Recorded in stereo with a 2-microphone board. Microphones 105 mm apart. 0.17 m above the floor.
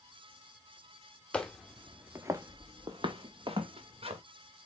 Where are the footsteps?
10° left (ahead or behind), 0.9 m; by 4.2 s 70° right (ahead or behind), 1.8 m.